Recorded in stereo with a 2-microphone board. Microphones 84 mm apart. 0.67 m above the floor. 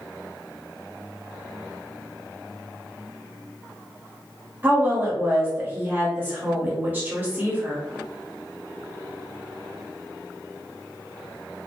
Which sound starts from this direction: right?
A woman speaking, at 4.6 s.